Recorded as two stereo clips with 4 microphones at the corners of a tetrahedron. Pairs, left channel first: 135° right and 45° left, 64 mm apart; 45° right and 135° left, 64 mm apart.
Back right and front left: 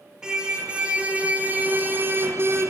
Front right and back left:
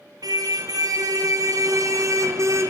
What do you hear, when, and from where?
0.2 s a car horn: 125° left, 4.5 m; by 2.7 s 95° left, 3.5 m